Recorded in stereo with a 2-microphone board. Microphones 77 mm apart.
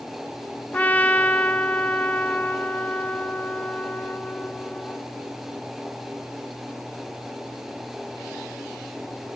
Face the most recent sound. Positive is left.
turn(degrees=20)  # may be behind; listen again after turning